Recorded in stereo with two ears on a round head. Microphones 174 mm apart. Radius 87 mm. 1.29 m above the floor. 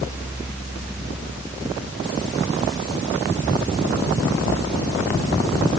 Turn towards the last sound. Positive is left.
No sound to turn to.